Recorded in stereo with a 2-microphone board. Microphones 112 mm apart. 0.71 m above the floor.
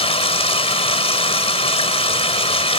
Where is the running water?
60° left (ahead or behind).